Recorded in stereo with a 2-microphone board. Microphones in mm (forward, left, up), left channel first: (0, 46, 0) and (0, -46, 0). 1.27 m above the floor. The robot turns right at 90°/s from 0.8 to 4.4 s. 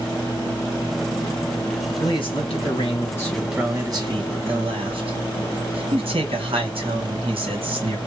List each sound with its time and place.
2.0 s a man speaking: 45° left, 1.2 m; by 8.0 s 100° right, 1.2 m